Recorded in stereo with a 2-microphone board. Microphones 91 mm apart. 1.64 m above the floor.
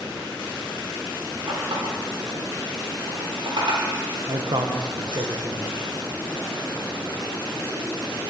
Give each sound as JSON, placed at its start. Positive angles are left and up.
{"t": 1.5, "sound": "a running tap", "side_deg": -70, "distance_m": 3.0}
{"t": 4.3, "sound": "a man speaking", "side_deg": -55, "distance_m": 1.1}